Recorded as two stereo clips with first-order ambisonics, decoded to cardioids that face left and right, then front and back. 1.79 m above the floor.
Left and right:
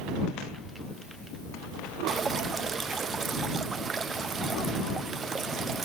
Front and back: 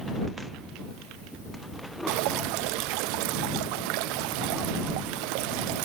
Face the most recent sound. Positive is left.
turn(degrees=-160)